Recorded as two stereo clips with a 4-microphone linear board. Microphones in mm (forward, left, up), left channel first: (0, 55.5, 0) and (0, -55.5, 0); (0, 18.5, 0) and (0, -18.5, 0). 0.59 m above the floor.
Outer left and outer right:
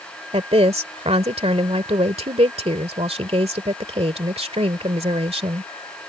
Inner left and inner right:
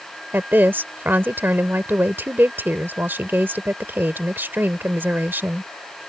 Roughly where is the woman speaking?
Right.